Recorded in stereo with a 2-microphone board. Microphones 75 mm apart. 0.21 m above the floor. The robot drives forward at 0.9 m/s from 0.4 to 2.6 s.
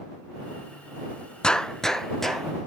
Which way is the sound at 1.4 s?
15° left (ahead or behind).